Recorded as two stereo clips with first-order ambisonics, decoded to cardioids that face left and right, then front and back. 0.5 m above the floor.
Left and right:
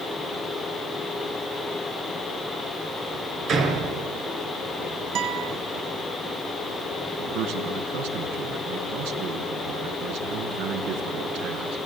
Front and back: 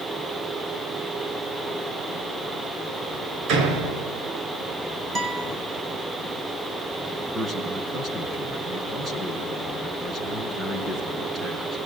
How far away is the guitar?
About 2.5 m.